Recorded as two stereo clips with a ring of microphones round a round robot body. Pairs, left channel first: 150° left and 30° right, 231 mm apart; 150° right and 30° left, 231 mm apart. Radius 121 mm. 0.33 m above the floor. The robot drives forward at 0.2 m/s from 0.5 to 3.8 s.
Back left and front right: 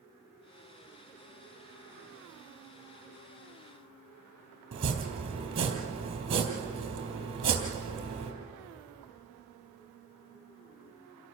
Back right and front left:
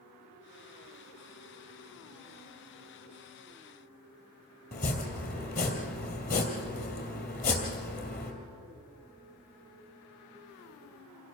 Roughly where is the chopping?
Right.